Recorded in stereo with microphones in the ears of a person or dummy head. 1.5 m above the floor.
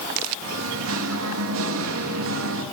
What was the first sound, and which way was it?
Singing, 80° right.